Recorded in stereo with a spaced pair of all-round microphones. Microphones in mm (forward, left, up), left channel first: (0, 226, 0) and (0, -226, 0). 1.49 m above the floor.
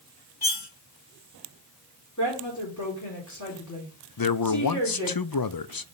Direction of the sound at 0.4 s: 55° left (ahead or behind).